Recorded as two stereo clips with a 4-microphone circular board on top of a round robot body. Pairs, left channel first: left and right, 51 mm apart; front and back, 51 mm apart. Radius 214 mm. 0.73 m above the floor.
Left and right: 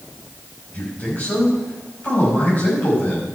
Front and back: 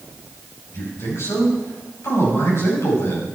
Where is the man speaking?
35° left, 6 m.